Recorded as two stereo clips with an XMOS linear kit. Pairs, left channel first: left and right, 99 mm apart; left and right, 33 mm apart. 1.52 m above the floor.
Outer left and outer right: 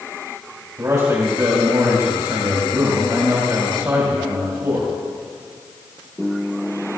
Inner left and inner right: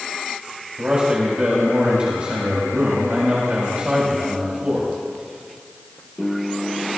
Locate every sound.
0.8 s a man speaking: 35° right (ahead or behind), 4 m